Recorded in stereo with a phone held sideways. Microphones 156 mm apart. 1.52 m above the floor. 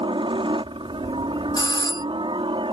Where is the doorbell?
25° left (ahead or behind).